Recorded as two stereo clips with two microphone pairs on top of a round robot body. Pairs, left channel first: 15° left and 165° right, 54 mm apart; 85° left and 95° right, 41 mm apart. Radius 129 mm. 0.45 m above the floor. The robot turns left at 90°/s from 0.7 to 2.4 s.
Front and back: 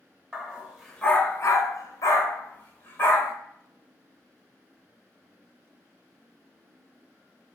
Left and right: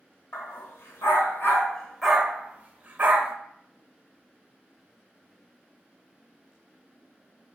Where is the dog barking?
115° left, 0.9 m; by 3.3 s 35° right, 0.9 m.